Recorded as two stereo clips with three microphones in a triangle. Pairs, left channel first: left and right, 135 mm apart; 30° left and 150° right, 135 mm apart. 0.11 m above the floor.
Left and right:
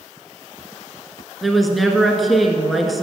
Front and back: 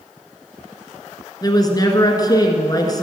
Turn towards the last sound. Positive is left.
turn(degrees=0)